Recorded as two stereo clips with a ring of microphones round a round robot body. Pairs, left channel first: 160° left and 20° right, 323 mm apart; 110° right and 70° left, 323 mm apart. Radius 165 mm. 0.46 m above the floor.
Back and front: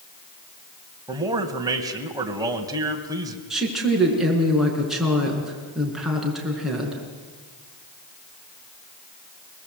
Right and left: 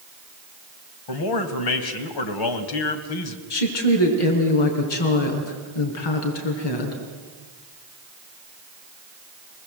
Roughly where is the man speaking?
Right.